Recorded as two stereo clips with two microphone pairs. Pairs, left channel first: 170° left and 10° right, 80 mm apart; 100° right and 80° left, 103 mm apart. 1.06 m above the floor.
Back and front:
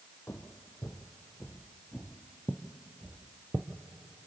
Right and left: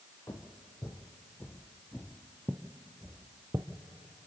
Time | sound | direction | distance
0.3 | footsteps | 140° right | 1.5 m